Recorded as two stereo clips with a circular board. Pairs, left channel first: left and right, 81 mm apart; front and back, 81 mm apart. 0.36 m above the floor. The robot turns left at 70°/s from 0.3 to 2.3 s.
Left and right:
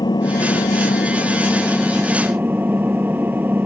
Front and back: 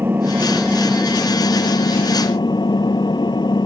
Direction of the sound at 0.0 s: 115° left.